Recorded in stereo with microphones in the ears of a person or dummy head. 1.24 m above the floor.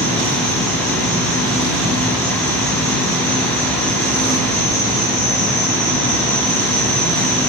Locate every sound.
0.0 s an insect: 50° left (ahead or behind), 2.5 m